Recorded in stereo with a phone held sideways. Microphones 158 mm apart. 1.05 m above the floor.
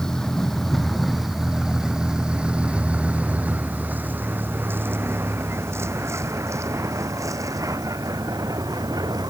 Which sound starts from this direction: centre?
A vehicle, at 0.0 s.